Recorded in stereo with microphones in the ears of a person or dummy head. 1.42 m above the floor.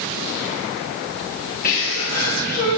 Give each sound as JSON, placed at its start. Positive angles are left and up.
{"t": 1.6, "sound": "a sneeze", "side_deg": 45, "distance_m": 2.5}